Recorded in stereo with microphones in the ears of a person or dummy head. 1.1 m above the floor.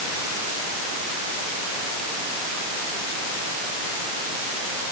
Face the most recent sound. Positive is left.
No sound to turn to.